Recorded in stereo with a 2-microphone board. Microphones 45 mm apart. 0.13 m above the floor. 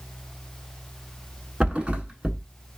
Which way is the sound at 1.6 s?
25° right (ahead or behind).